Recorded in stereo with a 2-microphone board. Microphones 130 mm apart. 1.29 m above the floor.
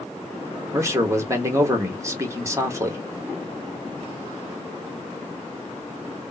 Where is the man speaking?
25° right (ahead or behind), 0.9 m.